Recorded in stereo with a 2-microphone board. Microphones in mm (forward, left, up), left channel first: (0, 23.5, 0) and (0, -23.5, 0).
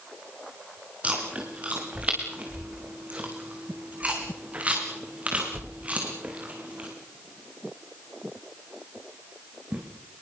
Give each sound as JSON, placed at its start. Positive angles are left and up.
{"t": 1.0, "sound": "chewing", "side_deg": -30, "distance_m": 5.5}